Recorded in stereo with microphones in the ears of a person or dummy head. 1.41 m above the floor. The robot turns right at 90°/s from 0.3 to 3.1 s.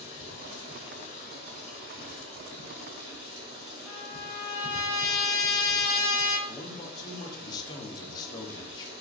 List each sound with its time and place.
0.0 s running water: 60° left, 1.7 m; by 9.0 s 50° right, 1.7 m
3.9 s a trumpet: 20° left (ahead or behind), 1.6 m
6.5 s a man speaking: 20° left (ahead or behind), 0.6 m